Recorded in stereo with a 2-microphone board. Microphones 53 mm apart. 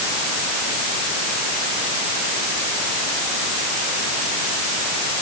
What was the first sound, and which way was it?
Only background noise.